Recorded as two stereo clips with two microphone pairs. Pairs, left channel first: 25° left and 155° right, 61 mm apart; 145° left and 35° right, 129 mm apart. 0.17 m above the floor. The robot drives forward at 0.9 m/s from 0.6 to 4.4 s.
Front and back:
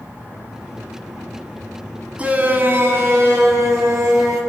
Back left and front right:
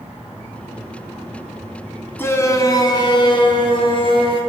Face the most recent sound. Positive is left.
turn(degrees=180)